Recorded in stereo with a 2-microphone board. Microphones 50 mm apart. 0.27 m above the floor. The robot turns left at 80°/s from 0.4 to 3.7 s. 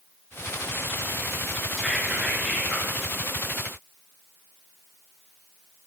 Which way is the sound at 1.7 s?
5° right (ahead or behind).